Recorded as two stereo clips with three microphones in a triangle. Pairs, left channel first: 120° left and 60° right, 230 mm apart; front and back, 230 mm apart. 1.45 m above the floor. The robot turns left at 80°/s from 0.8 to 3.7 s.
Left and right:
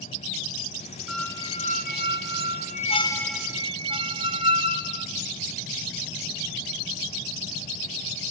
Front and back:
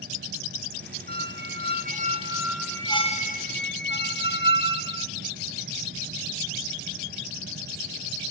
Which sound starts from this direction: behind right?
A squeak, at 1.1 s.